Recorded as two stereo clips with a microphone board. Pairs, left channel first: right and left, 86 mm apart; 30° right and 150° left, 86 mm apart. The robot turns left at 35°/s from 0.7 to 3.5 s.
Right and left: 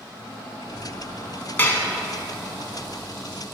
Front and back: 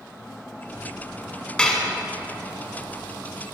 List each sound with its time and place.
1.6 s dishes clattering: 85° right, 0.7 m; by 1.9 s 95° right, 0.7 m